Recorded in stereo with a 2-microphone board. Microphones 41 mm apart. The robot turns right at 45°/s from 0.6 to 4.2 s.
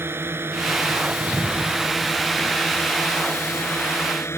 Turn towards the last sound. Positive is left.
turn(degrees=95)